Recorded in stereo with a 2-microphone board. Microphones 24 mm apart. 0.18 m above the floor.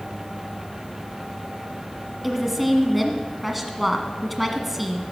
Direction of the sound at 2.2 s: Centre (ahead or behind).